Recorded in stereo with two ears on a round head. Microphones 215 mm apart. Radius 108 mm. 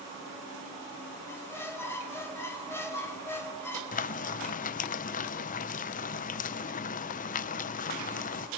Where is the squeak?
10° left (ahead or behind), 2.5 m.